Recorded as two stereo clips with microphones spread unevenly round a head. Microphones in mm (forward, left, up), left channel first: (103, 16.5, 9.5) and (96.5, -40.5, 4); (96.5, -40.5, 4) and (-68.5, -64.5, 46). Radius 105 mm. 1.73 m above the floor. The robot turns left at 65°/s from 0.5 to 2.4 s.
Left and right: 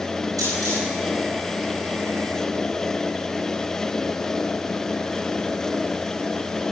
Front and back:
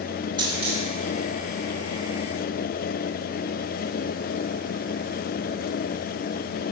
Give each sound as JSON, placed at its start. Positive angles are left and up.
{"t": 0.4, "sound": "a dropped coin", "azimuth_deg": -115, "distance_m": 6.5}